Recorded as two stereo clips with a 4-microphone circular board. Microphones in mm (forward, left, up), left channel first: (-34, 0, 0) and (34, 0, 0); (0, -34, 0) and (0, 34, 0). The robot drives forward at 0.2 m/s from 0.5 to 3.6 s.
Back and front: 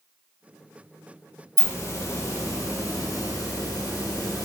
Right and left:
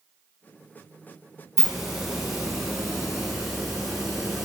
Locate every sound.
1.6 s a hiss: 170° left, 0.7 m; by 4.5 s 175° left, 1.0 m